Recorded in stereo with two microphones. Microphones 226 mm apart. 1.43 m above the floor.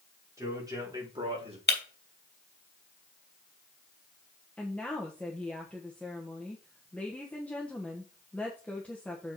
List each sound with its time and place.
0.4 s a man speaking: 15° right (ahead or behind), 4.5 m; by 1.6 s 25° right (ahead or behind), 3 m
1.7 s breaking glass: 45° left (ahead or behind), 2.5 m
4.6 s a woman speaking: 5° left (ahead or behind), 1.2 m